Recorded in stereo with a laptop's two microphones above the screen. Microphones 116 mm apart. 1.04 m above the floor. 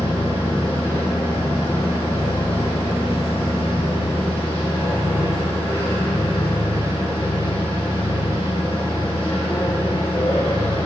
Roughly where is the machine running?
Left.